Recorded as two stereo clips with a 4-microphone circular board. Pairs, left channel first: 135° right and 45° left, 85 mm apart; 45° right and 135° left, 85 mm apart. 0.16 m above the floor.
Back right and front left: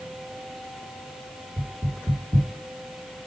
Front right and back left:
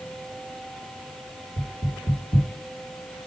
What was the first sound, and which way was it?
Knocking, 70° right.